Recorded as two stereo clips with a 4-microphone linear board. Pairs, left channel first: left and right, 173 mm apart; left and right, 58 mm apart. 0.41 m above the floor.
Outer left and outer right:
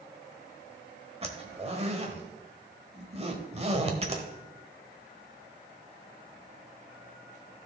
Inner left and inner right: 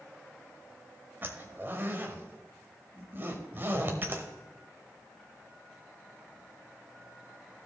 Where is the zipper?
35° right (ahead or behind), 1.2 m.